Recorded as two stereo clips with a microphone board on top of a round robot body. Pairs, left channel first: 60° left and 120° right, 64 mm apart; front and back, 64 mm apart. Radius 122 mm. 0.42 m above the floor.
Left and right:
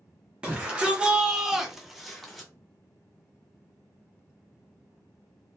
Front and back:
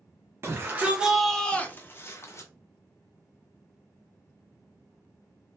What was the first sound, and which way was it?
A shout, straight behind.